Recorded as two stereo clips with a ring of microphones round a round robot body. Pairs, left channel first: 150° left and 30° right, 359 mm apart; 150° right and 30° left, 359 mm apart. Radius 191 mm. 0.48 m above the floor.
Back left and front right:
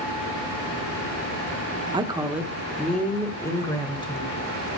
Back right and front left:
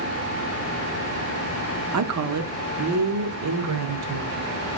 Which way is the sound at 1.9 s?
40° left.